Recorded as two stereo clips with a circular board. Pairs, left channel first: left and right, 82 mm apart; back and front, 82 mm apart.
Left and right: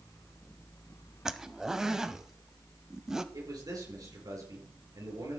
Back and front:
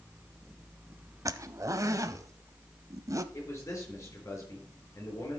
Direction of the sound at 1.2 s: 10° right.